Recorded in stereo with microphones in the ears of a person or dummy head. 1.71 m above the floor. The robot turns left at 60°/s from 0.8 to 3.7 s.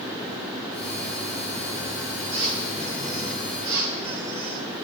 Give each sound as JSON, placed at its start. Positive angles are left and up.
{"t": 2.3, "sound": "a squeak", "azimuth_deg": -120, "distance_m": 9.0}